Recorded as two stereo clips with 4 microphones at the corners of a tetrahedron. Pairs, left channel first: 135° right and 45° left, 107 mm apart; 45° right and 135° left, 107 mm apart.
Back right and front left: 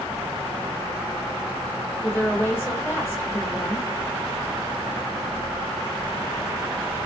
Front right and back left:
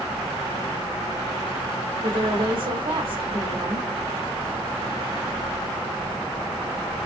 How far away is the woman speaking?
About 1.4 m.